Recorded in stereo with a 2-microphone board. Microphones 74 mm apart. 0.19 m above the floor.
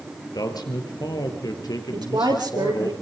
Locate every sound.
0.3 s a man speaking: 65° left (ahead or behind), 3.5 m
1.9 s a woman speaking: 75° right (ahead or behind), 6 m